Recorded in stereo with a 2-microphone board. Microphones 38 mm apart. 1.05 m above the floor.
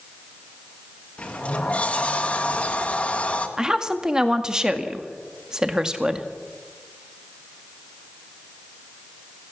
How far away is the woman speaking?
About 1.8 m.